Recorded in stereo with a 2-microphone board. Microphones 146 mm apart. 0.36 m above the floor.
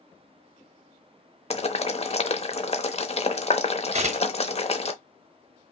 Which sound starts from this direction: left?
Boiling, at 1.5 s.